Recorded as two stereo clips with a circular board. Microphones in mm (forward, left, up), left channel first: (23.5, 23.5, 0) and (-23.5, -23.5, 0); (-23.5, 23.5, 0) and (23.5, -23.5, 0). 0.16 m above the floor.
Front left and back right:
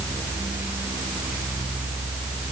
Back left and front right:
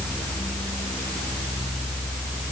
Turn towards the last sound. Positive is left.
No sound to turn to.